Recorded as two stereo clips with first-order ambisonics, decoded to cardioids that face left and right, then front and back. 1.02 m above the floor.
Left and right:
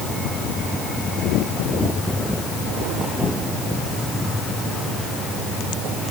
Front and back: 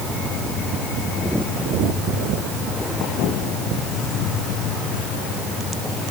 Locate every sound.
Only background noise.